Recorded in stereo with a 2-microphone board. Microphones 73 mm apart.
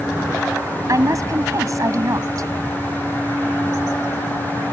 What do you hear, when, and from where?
0.9 s a woman speaking: 50° right (ahead or behind)